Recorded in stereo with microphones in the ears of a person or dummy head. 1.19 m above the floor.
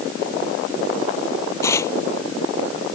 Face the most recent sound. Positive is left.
turn(degrees=20)  # may be behind; listen again after turning